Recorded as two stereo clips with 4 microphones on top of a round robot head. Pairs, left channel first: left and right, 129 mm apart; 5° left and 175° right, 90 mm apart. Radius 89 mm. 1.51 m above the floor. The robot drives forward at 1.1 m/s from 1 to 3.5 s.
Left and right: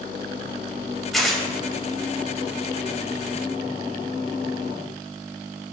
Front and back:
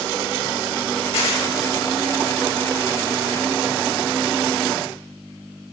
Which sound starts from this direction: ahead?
Tearing paper, at 1.1 s.